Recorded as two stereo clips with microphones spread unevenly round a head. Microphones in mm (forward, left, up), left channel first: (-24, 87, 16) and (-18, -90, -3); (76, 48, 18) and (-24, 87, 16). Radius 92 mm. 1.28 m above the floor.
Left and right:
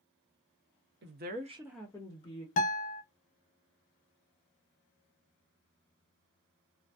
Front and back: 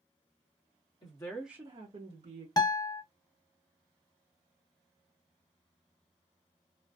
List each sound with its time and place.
1.0 s a woman speaking: 80° right, 1.0 m; by 2.5 s 150° left, 1.3 m
2.6 s a guitar: 35° left, 0.6 m